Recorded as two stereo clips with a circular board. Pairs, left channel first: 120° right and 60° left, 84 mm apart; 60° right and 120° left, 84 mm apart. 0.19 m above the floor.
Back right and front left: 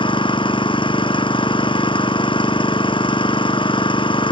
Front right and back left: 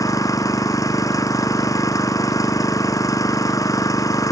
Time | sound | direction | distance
0.0 | an engine running | 110° right | ?